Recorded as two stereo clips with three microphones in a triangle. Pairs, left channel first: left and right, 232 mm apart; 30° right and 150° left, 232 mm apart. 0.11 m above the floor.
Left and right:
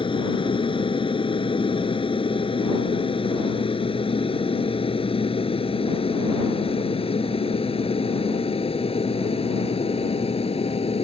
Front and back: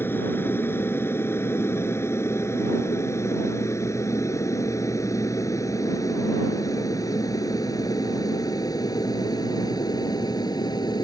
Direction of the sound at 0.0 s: 45° left.